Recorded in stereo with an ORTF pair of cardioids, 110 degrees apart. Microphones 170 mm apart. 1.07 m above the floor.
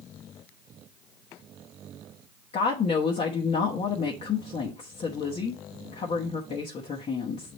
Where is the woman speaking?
40° left, 1.1 m.